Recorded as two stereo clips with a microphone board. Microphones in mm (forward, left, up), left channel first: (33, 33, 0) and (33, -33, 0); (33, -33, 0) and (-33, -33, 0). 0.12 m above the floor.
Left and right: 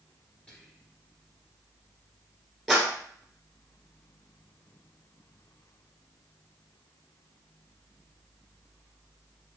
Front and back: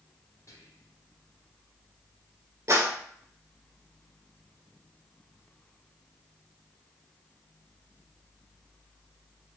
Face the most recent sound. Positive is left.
turn(degrees=180)